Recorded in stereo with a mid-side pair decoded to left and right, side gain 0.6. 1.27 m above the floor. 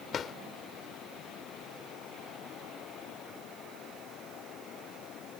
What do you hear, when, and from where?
0.1 s a drawer: 40° left